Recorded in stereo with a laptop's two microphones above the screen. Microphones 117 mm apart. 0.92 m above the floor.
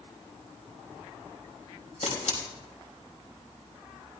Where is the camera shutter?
80° left, 3.5 m.